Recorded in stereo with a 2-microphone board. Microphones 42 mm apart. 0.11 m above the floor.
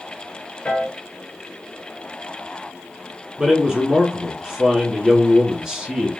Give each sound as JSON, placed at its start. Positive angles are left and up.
{"t": 0.7, "sound": "a piano", "side_deg": 30, "distance_m": 1.1}
{"t": 3.4, "sound": "a man speaking", "side_deg": -15, "distance_m": 1.1}